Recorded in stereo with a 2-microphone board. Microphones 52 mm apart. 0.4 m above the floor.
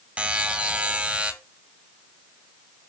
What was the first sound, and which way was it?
A buzzer, 25° right (ahead or behind).